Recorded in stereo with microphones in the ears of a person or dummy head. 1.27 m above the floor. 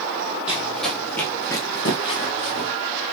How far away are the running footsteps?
About 2.5 m.